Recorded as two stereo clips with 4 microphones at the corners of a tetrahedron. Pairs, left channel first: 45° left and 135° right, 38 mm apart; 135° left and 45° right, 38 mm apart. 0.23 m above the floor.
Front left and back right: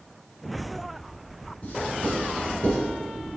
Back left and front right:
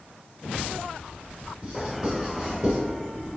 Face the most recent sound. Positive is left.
turn(degrees=5)